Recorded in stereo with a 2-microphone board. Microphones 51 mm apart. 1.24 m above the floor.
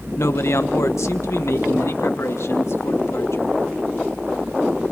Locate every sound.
0.2 s a man speaking: 60° left (ahead or behind), 1.2 m; by 3.6 s 65° left (ahead or behind), 3 m